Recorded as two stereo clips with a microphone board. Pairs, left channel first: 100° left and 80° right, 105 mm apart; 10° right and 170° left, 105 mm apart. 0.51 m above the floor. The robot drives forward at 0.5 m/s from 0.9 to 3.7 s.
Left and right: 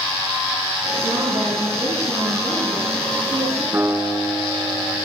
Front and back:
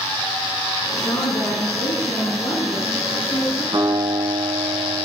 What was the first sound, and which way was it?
A woman speaking, 55° right.